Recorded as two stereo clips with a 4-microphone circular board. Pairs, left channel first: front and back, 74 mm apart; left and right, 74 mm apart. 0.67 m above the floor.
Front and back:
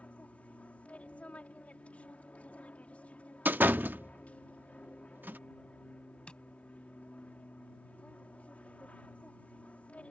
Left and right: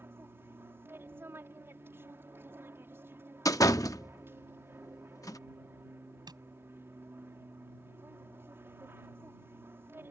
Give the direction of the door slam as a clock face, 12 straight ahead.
8 o'clock.